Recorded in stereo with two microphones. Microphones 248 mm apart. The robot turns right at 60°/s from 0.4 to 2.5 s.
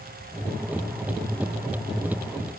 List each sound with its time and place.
Only background noise.